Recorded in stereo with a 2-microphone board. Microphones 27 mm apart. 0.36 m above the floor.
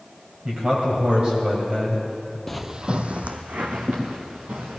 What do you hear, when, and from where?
0.5 s a man speaking: 45° right (ahead or behind), 2 m
2.5 s footsteps: 10° left (ahead or behind), 0.5 m; by 4.8 s 85° right, 3 m